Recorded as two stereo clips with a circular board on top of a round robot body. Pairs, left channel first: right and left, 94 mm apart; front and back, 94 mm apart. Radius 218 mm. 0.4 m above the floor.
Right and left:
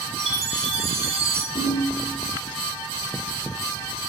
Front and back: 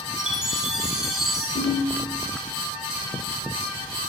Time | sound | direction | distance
0.2 | a chime | 95° left | 5.5 m
1.6 | a ringtone | 45° right | 4.5 m